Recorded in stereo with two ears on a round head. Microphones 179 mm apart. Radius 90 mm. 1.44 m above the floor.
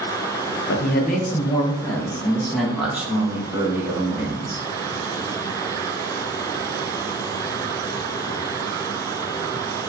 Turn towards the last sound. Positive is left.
turn(degrees=-20)  # may be behind; listen again after turning